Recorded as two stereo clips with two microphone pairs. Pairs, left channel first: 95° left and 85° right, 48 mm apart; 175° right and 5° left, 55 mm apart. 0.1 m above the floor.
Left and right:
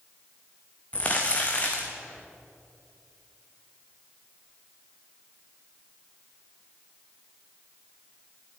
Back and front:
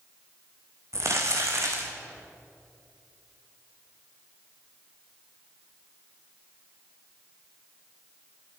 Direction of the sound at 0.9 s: 35° left.